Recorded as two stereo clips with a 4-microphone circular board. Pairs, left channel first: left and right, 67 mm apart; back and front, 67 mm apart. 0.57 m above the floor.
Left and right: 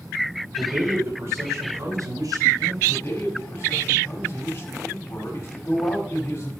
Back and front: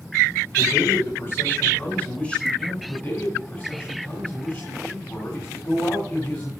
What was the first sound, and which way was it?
A man speaking, 150° right.